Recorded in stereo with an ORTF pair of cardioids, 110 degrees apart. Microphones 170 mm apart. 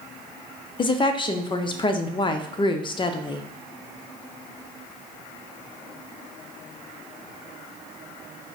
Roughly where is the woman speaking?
Ahead left.